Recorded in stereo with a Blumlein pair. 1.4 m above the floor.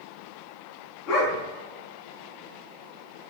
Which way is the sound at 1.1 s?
35° left.